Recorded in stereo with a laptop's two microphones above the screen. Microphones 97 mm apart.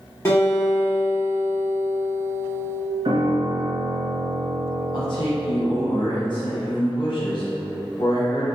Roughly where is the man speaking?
Left.